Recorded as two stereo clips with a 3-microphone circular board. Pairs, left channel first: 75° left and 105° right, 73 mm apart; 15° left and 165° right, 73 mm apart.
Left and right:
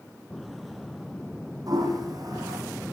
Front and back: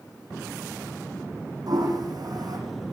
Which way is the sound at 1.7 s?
135° right.